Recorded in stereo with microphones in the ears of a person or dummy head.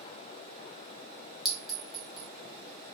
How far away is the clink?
About 0.5 m.